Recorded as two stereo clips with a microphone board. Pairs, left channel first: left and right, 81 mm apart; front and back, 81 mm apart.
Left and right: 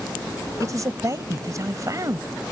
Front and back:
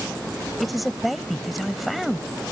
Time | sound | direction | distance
0.6 | a man speaking | 90° right | ?